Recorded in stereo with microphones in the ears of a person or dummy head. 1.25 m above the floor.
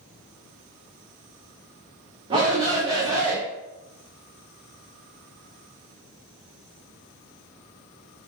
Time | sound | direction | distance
2.3 | a shout | 25° right (ahead or behind) | 0.8 m